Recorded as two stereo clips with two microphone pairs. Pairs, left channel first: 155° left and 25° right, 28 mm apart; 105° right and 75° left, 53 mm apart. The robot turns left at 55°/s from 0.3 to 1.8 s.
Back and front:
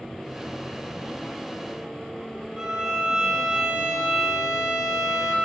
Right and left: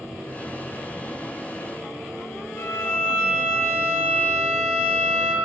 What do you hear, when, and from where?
2.6 s a violin: 60° right, 1.8 m